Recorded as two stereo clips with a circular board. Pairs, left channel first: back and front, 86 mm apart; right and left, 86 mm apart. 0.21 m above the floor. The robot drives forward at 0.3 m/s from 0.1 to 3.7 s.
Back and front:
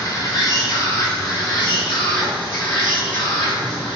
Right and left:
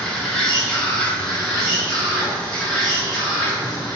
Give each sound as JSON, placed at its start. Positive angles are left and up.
{"t": 0.0, "sound": "an insect", "azimuth_deg": -170, "distance_m": 0.9}